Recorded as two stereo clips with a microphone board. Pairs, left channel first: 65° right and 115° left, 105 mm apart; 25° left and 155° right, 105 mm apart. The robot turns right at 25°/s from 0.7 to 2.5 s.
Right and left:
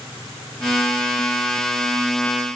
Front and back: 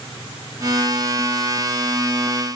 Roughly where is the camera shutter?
No camera shutter in this recording.